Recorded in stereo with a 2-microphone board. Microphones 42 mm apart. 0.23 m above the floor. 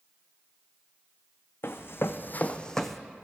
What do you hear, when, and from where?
1.6 s running footsteps: 75° left (ahead or behind), 0.8 m; by 3.0 s centre (ahead or behind), 0.7 m